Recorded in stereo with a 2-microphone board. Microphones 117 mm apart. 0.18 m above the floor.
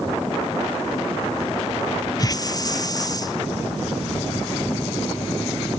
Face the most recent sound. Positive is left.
turn(degrees=30)  # may be behind; listen again after turning